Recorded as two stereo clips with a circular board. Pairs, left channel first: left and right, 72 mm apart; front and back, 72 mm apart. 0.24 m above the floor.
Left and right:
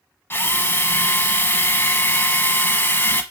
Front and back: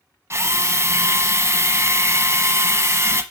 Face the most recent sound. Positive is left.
turn(degrees=140)